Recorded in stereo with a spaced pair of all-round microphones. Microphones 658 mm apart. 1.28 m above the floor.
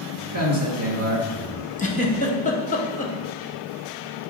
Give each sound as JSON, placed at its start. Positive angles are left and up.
{"t": 0.3, "sound": "a man speaking", "side_deg": -20, "distance_m": 2.0}
{"t": 1.8, "sound": "a giggle", "side_deg": 10, "distance_m": 1.0}